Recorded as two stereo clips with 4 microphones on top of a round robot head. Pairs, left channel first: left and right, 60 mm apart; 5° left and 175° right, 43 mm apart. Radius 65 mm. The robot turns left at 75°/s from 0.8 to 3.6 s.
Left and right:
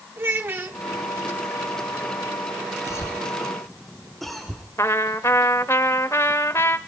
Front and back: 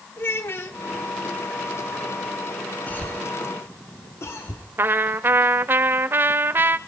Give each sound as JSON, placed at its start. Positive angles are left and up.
{"t": 0.2, "sound": "a child speaking", "azimuth_deg": -40, "distance_m": 1.3}
{"t": 2.9, "sound": "a cough", "azimuth_deg": 60, "distance_m": 2.0}
{"t": 4.8, "sound": "a trumpet", "azimuth_deg": 150, "distance_m": 0.6}